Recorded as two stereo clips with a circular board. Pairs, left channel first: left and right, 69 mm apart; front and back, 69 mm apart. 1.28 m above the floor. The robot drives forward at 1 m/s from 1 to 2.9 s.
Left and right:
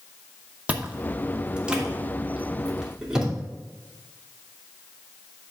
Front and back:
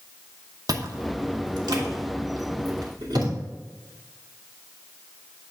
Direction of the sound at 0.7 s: 160° right.